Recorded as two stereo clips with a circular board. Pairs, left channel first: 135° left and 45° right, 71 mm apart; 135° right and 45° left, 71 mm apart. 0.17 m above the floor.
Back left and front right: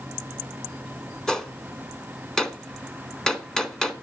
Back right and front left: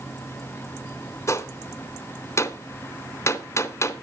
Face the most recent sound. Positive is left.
turn(degrees=-145)